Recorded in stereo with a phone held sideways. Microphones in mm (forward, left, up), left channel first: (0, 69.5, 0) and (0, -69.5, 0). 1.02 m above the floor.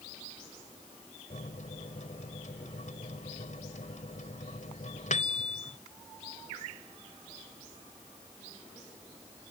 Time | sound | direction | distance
1.3 | a microwave | 60° left (ahead or behind) | ?